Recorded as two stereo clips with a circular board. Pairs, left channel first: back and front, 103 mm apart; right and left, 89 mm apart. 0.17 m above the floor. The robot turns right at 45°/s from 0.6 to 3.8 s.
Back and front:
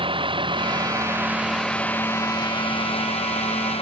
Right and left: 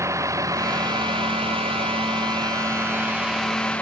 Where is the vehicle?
35° left; by 3.8 s 165° right.